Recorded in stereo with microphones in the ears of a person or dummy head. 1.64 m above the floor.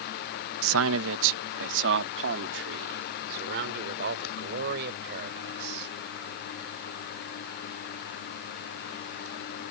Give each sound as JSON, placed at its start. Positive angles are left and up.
{"t": 0.6, "sound": "a man speaking", "side_deg": -75}